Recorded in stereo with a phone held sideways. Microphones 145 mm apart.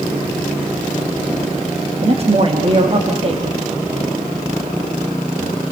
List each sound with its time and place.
2.0 s a man speaking: 45° right (ahead or behind), 2 m